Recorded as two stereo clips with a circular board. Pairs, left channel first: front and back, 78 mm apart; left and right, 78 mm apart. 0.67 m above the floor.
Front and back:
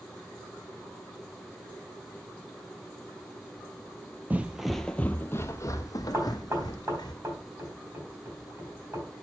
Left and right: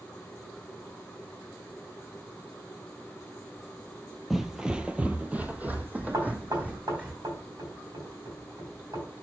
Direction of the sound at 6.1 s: 125° right.